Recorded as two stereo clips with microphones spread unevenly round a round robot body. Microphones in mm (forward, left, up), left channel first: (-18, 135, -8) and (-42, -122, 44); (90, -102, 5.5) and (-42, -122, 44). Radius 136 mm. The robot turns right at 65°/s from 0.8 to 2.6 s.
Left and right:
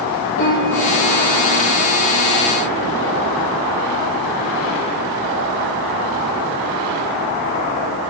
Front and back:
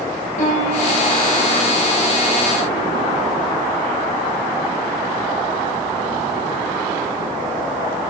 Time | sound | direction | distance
0.4 | a piano | 45° left | 6 m